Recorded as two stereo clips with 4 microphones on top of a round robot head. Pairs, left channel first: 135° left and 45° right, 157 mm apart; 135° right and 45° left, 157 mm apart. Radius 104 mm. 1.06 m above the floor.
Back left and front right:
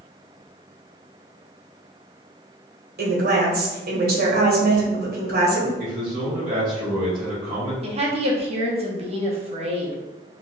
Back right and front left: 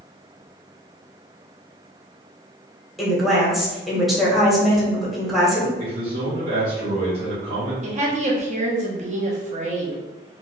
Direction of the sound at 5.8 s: 5° left.